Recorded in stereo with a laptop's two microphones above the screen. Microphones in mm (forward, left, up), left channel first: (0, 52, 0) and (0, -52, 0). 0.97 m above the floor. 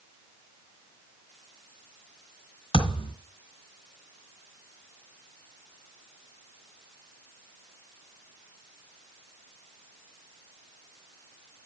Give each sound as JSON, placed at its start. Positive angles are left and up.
{"t": 2.7, "sound": "a thud", "side_deg": 70, "distance_m": 1.9}